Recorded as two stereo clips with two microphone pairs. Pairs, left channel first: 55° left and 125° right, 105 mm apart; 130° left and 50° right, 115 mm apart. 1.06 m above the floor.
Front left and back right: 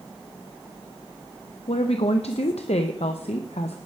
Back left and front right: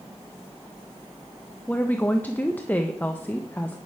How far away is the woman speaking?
About 0.7 m.